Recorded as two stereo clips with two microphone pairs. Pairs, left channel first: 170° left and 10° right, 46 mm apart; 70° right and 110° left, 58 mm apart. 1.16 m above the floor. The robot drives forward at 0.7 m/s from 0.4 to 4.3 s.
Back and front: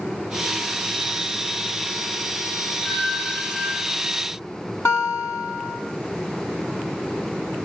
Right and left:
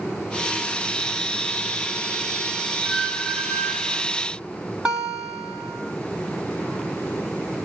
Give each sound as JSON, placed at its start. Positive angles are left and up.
{"t": 2.9, "sound": "a squeak", "azimuth_deg": -175, "distance_m": 1.6}
{"t": 4.8, "sound": "a guitar", "azimuth_deg": -175, "distance_m": 4.0}